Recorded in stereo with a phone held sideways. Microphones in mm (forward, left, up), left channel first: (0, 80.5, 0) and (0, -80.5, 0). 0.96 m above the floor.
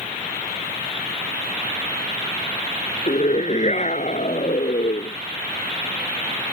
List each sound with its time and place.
3.1 s a scream: 45° left (ahead or behind)